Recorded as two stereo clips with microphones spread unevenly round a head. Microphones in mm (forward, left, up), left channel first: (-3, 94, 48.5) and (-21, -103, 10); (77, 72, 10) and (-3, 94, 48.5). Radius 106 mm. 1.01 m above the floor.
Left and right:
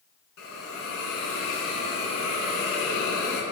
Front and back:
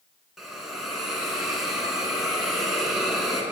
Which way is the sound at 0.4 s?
85° left.